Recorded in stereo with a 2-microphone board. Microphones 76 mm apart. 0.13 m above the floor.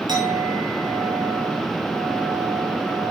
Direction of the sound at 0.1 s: 80° right.